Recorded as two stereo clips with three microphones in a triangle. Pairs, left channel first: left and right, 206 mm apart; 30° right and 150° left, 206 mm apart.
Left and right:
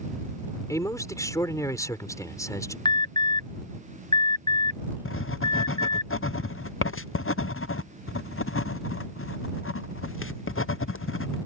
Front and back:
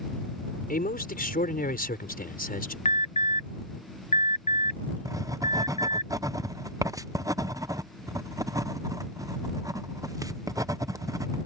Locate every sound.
0.7 s a man speaking: 15° left
2.9 s an alarm: 20° left
5.0 s writing: 80° left